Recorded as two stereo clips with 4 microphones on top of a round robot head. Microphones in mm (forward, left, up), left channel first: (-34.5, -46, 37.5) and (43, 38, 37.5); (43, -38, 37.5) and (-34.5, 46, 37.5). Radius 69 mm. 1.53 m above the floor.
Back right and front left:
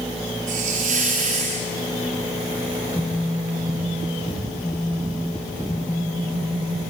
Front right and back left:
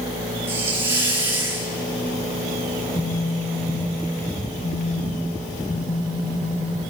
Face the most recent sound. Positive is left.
turn(degrees=-70)